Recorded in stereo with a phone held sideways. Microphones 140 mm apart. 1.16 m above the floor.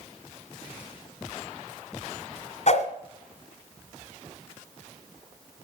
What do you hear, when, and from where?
2.7 s a whoosh: 55° left (ahead or behind), 1.7 m